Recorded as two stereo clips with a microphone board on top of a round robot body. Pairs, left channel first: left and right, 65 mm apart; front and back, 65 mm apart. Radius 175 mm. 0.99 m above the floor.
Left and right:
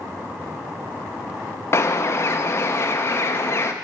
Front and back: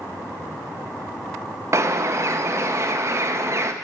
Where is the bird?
140° left, 0.6 m.